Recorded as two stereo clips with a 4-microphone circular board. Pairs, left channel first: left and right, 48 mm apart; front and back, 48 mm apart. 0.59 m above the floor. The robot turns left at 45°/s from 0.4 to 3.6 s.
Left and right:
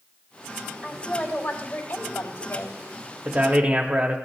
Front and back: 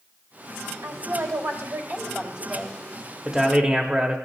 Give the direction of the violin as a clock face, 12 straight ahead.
No violin in this recording.